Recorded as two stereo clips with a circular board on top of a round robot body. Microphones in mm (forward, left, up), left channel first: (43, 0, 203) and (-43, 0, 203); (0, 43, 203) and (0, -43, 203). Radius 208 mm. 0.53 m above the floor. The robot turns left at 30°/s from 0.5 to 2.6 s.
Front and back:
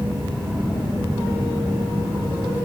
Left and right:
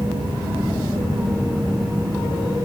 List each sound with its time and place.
Only background noise.